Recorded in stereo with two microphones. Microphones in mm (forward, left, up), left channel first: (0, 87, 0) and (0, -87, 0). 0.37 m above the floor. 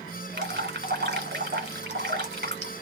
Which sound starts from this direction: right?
Dripping, at 0.3 s.